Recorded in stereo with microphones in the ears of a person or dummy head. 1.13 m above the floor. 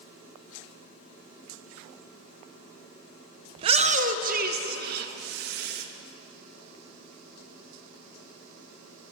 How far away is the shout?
About 0.6 m.